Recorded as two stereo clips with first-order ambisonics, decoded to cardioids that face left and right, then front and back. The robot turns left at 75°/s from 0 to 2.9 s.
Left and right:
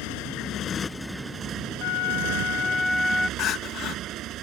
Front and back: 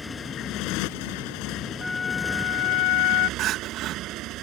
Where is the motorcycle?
80° left; by 4.4 s 135° right.